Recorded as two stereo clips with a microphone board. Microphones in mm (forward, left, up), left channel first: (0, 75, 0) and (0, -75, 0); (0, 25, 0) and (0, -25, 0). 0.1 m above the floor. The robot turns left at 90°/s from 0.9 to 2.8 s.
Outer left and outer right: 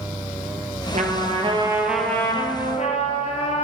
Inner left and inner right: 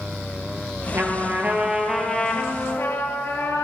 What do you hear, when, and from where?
0.9 s a trumpet: 85° right, 1.4 m; by 3.6 s 105° left, 1.4 m